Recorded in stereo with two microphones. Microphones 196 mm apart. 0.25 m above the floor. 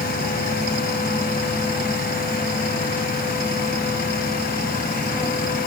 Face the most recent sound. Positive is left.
No sound to turn to.